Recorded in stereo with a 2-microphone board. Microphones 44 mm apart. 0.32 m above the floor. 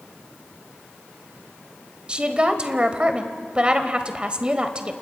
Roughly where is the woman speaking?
Right.